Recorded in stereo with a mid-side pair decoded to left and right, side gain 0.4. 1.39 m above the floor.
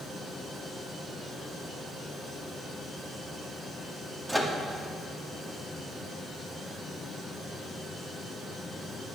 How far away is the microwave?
About 2 m.